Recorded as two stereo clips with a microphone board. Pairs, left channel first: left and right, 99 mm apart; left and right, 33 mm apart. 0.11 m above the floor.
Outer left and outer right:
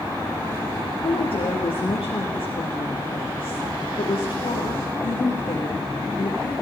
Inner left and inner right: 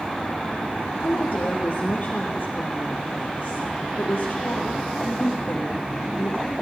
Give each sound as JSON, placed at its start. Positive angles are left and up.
{"t": 1.0, "sound": "a woman speaking", "side_deg": 65, "distance_m": 3.0}